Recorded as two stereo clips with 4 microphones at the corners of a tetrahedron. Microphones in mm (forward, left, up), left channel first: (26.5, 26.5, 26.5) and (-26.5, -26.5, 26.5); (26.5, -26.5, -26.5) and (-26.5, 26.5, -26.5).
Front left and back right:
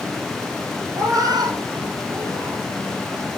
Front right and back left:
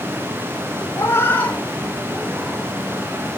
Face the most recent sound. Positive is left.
turn(degrees=-150)